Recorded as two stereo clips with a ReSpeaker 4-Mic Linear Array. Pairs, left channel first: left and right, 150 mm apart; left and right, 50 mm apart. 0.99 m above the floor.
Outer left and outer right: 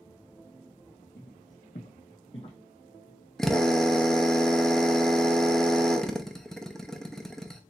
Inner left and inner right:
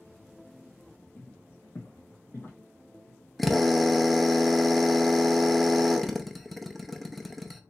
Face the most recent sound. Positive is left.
turn(degrees=5)  # may be behind; listen again after turning